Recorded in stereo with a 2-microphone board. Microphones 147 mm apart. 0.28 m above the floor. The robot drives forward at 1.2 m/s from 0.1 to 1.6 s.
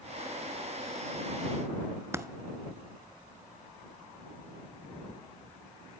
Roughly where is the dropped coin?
Centre.